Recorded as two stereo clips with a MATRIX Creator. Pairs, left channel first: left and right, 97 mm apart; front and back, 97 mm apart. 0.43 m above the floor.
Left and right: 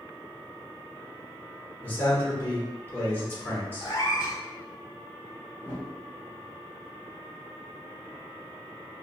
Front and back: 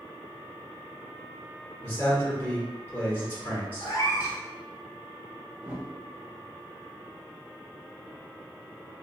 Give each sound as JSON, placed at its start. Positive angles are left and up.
{"t": 1.8, "sound": "a man speaking", "azimuth_deg": 50, "distance_m": 1.3}
{"t": 3.8, "sound": "a cat meowing", "azimuth_deg": 50, "distance_m": 1.0}
{"t": 5.6, "sound": "a whoosh", "azimuth_deg": 125, "distance_m": 0.7}